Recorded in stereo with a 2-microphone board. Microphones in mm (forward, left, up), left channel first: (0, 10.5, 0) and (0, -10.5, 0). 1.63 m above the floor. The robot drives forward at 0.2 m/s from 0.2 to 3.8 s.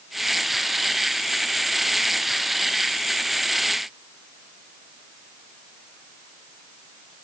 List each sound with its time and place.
Only background noise.